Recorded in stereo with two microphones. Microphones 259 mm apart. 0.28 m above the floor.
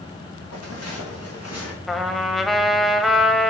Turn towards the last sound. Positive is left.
turn(degrees=0)  # may be behind; listen again after turning